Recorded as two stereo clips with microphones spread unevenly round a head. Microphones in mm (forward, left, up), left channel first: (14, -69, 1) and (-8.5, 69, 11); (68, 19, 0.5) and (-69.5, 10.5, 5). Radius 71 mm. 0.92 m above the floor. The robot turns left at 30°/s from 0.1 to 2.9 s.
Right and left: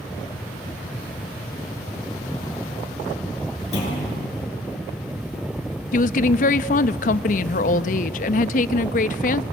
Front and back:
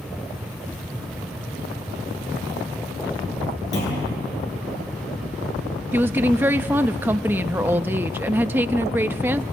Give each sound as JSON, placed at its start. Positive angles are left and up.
{"t": 3.7, "sound": "a clunk", "azimuth_deg": -40, "distance_m": 9.0}
{"t": 5.9, "sound": "a woman speaking", "azimuth_deg": -100, "distance_m": 0.8}